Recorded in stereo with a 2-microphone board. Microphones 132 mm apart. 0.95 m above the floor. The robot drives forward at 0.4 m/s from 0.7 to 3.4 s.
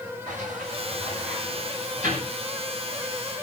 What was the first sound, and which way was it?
A sliding door, 70° right (ahead or behind).